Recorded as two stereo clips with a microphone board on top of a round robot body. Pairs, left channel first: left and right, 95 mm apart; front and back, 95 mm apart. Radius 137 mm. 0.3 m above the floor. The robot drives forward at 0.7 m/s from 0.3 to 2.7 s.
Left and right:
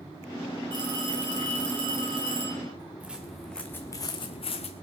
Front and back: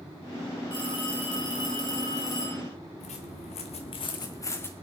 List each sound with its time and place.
0.7 s a phone ringing: 45° right, 6.5 m; by 2.6 s 55° right, 5.5 m
3.0 s footsteps: 10° right, 2 m; by 4.7 s 70° left, 2.0 m